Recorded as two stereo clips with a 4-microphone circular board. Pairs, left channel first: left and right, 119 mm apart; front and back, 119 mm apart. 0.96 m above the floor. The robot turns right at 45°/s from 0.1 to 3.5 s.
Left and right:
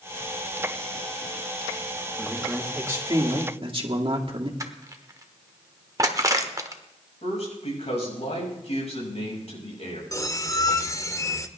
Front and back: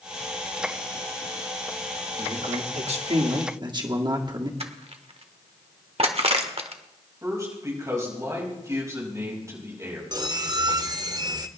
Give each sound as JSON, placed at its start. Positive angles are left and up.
{"t": 2.2, "sound": "a man speaking", "azimuth_deg": 170, "distance_m": 2.0}
{"t": 4.6, "sound": "crushing", "azimuth_deg": -150, "distance_m": 1.2}
{"t": 7.2, "sound": "a man speaking", "azimuth_deg": 115, "distance_m": 5.5}
{"t": 10.1, "sound": "a squeak", "azimuth_deg": 140, "distance_m": 0.8}